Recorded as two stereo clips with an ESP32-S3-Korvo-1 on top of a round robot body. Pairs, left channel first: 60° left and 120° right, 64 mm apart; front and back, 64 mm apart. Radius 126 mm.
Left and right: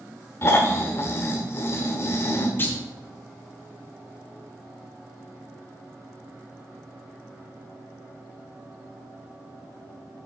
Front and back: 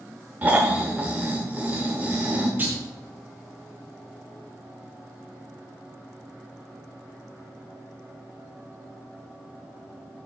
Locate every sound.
0.4 s snoring: 110° left, 1.1 m
2.6 s a clunk: 120° left, 2 m